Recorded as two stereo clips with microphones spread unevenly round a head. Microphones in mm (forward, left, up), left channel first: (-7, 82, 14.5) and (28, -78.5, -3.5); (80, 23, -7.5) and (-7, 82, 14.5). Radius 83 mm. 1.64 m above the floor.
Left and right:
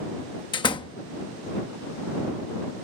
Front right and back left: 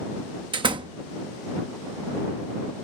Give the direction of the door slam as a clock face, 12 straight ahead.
7 o'clock.